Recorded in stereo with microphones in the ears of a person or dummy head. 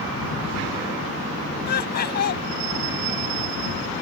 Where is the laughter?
55° left (ahead or behind).